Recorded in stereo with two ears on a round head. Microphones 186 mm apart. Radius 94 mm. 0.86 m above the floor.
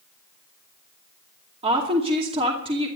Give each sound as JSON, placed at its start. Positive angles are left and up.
{"t": 1.6, "sound": "a woman speaking", "side_deg": -30, "distance_m": 2.5}